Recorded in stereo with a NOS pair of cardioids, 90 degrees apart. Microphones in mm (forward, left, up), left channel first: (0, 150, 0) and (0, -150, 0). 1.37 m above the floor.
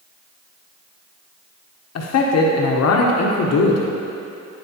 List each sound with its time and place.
1.9 s a man speaking: 60° left, 1.2 m